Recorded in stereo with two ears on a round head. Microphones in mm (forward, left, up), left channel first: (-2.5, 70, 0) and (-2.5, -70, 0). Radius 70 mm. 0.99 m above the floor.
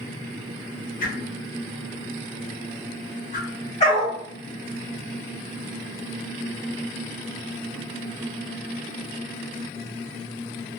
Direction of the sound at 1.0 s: 50° left (ahead or behind).